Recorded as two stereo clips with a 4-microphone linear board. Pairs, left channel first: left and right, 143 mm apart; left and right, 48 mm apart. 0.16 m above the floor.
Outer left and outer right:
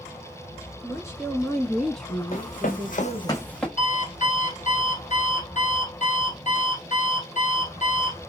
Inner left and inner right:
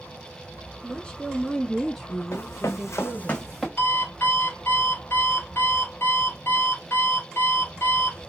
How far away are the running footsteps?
About 1.3 m.